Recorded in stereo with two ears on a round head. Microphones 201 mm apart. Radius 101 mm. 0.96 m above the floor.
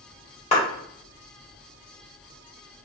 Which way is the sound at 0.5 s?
30° left (ahead or behind).